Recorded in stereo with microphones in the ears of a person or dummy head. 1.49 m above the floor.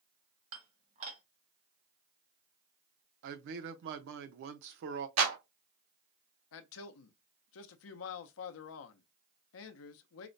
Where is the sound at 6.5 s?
75° left (ahead or behind), 0.6 m.